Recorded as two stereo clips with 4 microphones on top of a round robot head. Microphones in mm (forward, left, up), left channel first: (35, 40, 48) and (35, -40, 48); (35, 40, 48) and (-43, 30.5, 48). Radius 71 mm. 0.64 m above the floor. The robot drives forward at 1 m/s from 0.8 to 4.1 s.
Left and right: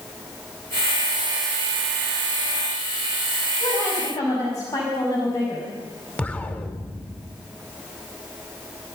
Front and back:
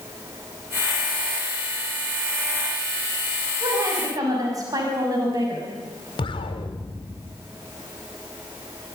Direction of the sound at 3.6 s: 140° left.